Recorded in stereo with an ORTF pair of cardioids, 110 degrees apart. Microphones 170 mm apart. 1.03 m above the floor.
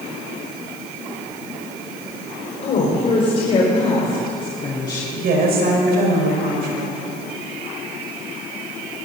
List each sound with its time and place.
2.6 s a woman speaking: 45° left, 5 m; by 5.0 s 25° left, 3 m
5.1 s a woman speaking: 65° right, 5 m